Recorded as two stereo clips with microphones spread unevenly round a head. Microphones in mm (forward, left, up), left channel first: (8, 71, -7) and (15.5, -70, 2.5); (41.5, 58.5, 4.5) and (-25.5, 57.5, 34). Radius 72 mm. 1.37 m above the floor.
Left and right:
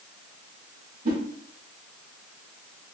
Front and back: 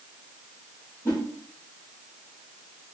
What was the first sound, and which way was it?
A whoosh, 85° right.